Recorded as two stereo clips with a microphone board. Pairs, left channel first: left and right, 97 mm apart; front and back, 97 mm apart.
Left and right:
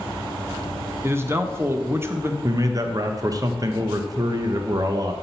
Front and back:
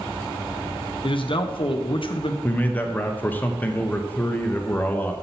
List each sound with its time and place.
1.0 s a man speaking: 25° right, 0.7 m
2.4 s a man speaking: 65° right, 0.6 m